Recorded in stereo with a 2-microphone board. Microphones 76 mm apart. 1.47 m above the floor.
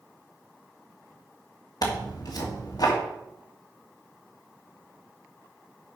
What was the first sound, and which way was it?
Tearing paper, 55° left (ahead or behind).